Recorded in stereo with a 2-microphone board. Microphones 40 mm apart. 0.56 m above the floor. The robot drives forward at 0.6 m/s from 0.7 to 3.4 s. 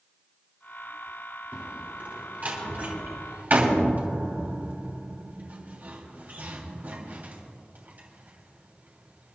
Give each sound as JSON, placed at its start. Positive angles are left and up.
{"t": 1.5, "sound": "a door slam", "side_deg": -35, "distance_m": 3.5}